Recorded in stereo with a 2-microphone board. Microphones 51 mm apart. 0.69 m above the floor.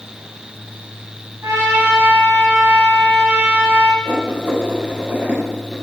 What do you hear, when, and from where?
1.4 s a trumpet: 70° right (ahead or behind), 4 m
4.0 s writing: 40° right (ahead or behind), 5 m